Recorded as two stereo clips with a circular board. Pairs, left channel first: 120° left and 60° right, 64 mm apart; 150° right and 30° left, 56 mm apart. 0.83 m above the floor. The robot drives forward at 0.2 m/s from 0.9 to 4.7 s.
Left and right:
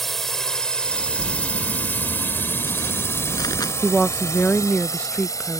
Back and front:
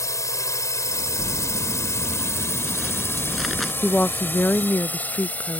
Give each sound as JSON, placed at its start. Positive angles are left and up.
{"t": 0.0, "sound": "a drone", "azimuth_deg": -155}
{"t": 1.2, "sound": "crumpling", "azimuth_deg": 115}
{"t": 3.8, "sound": "a woman speaking", "azimuth_deg": 170}